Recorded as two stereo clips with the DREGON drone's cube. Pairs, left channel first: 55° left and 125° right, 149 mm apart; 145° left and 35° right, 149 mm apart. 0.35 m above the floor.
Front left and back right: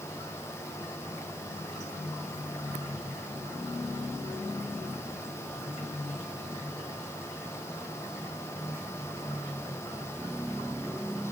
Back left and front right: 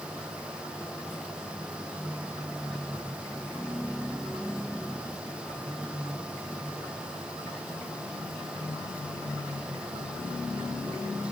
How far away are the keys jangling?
I don't hear keys jangling.